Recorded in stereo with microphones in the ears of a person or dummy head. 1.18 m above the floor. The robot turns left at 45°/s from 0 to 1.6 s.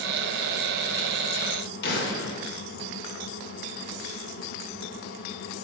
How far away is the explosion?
About 2.5 m.